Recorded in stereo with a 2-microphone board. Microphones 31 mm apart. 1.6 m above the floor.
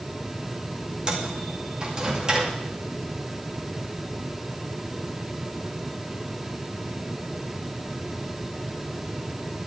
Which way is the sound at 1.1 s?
25° right (ahead or behind).